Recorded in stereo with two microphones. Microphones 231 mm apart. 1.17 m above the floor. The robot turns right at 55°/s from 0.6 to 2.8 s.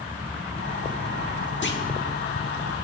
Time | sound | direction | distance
1.6 | a clunk | 55° left (ahead or behind) | 1.3 m